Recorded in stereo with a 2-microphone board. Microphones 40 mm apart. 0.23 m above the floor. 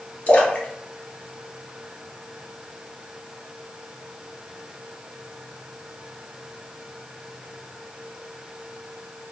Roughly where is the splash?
Left.